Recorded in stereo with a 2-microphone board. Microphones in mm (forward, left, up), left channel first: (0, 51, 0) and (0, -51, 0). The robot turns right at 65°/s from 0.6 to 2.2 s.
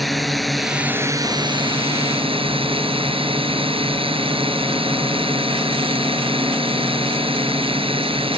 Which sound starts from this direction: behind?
A drone, at 0.0 s.